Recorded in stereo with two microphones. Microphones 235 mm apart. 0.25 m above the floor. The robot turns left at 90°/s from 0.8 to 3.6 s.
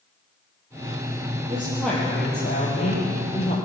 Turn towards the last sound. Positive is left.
turn(degrees=20)